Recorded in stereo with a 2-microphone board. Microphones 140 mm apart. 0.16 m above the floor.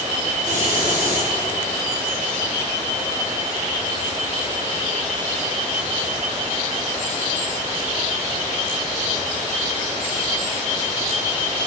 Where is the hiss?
70° right (ahead or behind), 2 m.